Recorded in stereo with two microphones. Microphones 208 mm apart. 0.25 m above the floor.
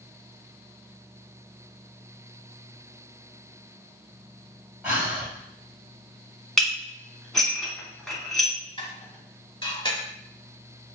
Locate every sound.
4.8 s breathing: 5° right (ahead or behind), 1.4 m
6.6 s dishes clattering: centre (ahead or behind), 1.5 m
8.8 s dishes clattering: 25° left (ahead or behind), 1.2 m